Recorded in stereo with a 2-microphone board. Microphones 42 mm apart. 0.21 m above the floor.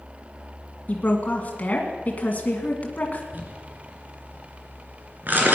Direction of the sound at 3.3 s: 45° right (ahead or behind).